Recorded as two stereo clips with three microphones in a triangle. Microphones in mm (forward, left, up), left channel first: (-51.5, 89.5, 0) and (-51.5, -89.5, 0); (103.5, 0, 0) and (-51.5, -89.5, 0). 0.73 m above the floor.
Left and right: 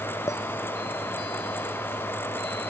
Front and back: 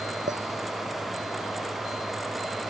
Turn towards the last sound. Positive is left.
turn(degrees=165)